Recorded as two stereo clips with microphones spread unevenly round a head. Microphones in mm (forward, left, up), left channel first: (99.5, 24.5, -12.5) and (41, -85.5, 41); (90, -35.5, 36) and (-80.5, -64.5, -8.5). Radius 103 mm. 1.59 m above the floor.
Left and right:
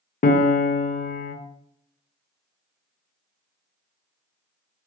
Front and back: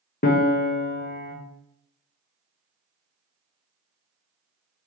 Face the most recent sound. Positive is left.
turn(degrees=30)